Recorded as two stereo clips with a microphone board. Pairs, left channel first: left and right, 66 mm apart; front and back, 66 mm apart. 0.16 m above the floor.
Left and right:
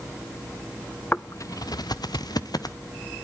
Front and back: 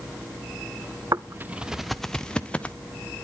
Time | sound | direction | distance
1.1 | footsteps | 155° left | 0.6 m